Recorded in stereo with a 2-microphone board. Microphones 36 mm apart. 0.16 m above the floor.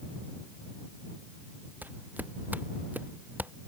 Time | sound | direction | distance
1.8 | footsteps | 55° right (ahead or behind) | ?